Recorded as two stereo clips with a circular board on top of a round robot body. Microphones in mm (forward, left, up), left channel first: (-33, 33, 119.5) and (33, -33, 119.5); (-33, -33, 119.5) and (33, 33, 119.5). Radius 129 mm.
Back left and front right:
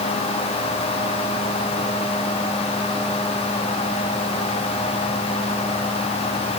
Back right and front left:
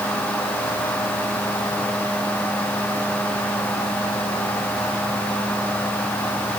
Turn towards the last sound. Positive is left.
No sound to turn to.